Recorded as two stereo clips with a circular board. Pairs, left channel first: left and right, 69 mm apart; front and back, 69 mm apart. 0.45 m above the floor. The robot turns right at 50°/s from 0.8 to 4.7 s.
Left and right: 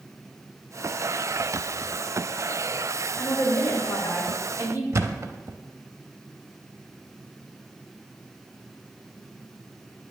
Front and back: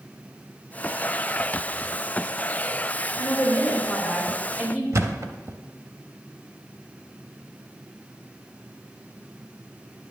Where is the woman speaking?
40° left, 2.5 m; by 4.8 s 115° left, 2.5 m.